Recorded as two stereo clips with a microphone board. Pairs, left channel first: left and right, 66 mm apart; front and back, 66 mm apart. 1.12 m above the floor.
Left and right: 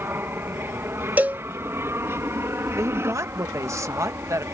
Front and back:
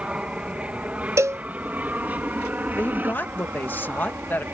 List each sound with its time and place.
0.0 s an aircraft: 120° right; by 4.5 s 130° right
1.2 s a cowbell: 150° right
2.8 s a woman speaking: 55° right